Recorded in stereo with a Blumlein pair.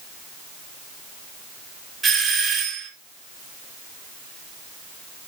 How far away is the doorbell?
About 4 m.